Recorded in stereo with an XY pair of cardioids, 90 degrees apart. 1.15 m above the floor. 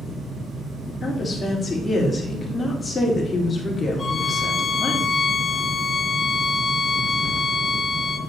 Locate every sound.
0.0 s a fan: 35° right, 4 m
1.0 s a woman speaking: 30° left, 2.5 m
4.0 s a violin: 40° left, 1.6 m